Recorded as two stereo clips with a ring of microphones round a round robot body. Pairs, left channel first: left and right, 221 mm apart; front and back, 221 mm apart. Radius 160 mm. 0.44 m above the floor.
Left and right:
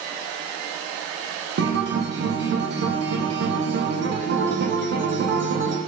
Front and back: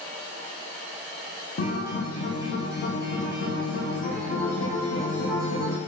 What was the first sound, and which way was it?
A guitar, 50° right.